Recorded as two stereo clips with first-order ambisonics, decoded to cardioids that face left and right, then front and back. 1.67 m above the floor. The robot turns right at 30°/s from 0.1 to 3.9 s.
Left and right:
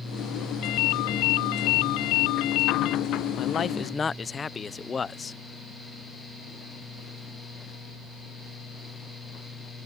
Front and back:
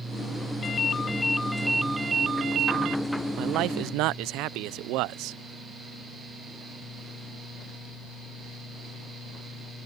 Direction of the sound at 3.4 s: 145° left.